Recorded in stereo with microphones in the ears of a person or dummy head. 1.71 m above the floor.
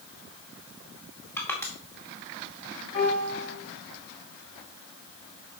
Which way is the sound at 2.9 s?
40° left (ahead or behind).